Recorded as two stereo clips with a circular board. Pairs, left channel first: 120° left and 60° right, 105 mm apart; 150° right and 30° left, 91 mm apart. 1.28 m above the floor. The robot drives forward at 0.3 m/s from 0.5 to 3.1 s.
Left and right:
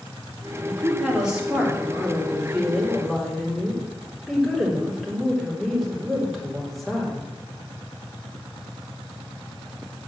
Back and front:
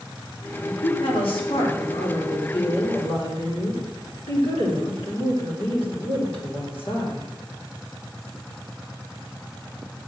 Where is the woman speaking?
140° right, 2.5 m; by 7.3 s 150° right, 3 m.